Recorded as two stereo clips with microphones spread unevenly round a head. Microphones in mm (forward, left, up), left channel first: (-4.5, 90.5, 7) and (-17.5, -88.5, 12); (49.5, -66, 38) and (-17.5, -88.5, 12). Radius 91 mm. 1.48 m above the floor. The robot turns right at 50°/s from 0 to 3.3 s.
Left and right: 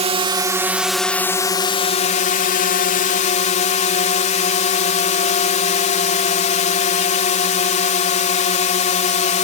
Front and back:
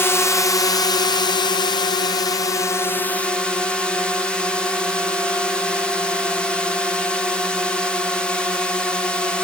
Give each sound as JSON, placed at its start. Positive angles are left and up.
{"t": 0.0, "sound": "a drone", "azimuth_deg": -50}